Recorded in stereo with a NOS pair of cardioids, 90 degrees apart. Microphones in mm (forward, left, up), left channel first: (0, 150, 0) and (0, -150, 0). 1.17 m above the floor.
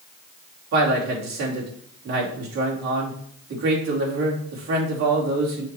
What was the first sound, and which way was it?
A man speaking, 65° right.